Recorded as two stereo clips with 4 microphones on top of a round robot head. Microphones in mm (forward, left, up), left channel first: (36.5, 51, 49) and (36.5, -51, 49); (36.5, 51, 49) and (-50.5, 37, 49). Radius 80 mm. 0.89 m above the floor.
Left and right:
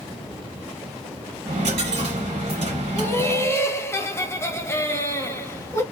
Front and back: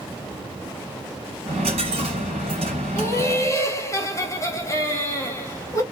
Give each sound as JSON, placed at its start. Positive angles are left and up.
{"t": 1.5, "sound": "a dropped coin", "azimuth_deg": -135, "distance_m": 1.6}
{"t": 3.0, "sound": "laughter", "azimuth_deg": 40, "distance_m": 1.1}